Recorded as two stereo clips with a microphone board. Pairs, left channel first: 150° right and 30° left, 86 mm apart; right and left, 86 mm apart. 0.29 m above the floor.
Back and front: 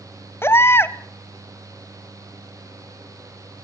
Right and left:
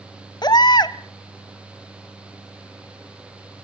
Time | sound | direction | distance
0.4 | a baby crying | 95° right | 0.7 m